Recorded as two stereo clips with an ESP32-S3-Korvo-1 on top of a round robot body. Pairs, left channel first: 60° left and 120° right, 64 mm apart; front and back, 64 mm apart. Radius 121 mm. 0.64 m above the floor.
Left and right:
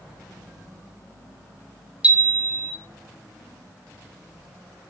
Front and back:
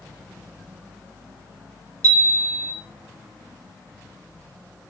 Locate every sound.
2.0 s a chime: 175° left, 1.5 m